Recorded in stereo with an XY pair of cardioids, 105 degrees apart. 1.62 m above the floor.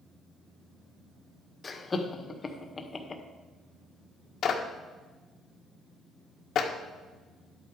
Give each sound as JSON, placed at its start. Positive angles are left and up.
{"t": 1.6, "sound": "laughter", "azimuth_deg": 30, "distance_m": 1.7}
{"t": 4.4, "sound": "a clap", "azimuth_deg": 60, "distance_m": 1.6}